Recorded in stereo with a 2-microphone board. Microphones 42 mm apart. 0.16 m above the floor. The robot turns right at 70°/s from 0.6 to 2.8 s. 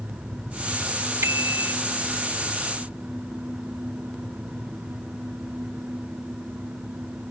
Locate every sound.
1.2 s a bicycle bell: 105° right; by 1.7 s 70° right